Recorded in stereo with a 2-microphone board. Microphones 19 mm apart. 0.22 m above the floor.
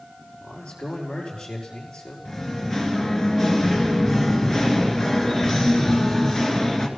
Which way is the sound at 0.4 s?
70° left (ahead or behind).